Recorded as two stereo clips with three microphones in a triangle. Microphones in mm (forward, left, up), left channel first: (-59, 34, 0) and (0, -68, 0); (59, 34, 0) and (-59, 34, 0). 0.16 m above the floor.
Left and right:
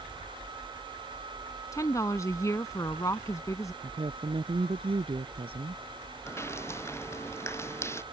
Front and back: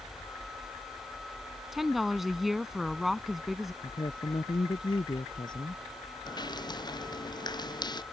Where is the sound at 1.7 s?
95° left.